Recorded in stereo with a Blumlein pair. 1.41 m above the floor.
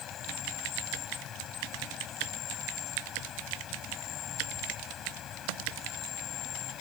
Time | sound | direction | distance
0.0 | an insect | 30° left | ?